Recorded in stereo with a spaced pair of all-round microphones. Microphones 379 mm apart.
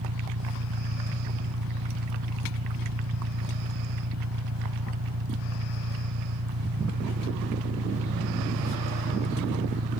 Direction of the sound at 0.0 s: 60° right (ahead or behind).